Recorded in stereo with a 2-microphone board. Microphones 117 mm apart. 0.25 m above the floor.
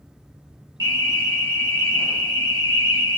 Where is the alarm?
35° left (ahead or behind), 1.2 m.